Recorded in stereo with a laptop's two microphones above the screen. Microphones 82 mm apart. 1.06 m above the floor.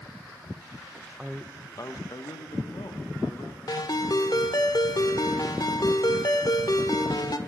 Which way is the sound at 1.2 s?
10° right (ahead or behind).